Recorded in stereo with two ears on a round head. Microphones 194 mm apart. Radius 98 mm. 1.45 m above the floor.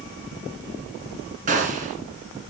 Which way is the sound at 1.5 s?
35° right (ahead or behind).